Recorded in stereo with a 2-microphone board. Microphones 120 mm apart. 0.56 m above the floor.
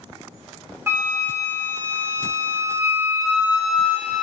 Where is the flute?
25° right (ahead or behind), 0.9 m.